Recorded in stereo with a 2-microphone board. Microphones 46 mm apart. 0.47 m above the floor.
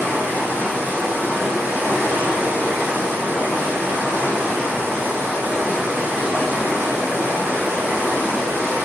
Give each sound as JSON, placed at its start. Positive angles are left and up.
{"t": 0.0, "sound": "running water", "side_deg": -55, "distance_m": 1.5}